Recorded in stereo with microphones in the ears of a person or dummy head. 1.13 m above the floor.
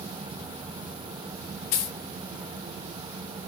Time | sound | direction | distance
1.7 | a dropped coin | 45° left (ahead or behind) | 1.2 m